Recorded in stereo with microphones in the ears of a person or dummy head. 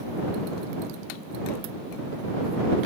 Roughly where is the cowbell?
No cowbell in this recording.